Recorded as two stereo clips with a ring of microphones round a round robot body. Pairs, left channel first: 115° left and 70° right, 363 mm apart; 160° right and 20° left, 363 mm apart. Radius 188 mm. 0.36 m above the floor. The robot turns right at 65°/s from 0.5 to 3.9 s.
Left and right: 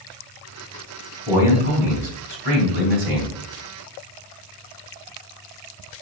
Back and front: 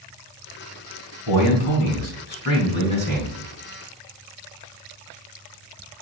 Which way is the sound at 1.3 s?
160° right.